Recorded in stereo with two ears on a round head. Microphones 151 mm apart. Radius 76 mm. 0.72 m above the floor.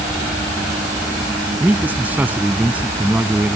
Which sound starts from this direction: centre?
A man speaking, at 1.6 s.